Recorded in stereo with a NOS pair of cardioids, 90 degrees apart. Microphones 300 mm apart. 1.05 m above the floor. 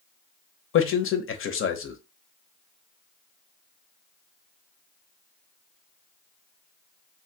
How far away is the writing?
I don't hear writing.